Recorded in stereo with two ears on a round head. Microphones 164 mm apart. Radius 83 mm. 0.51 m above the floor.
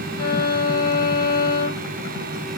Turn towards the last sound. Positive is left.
turn(degrees=25)  # may be behind; listen again after turning